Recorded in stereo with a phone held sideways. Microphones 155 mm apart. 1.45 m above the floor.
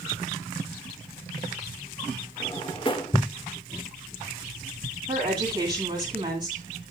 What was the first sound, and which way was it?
A drawer, 30° left (ahead or behind).